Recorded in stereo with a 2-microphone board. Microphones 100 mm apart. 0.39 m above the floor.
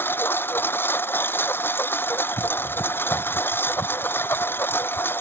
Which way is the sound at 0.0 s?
20° left (ahead or behind).